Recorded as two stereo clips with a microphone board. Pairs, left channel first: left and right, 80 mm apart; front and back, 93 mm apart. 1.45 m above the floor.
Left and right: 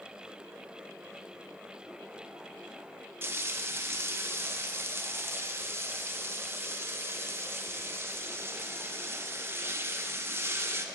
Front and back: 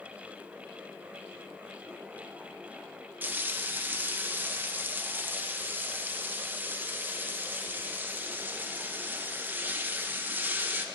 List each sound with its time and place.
3.2 s frying: 125° right, 0.6 m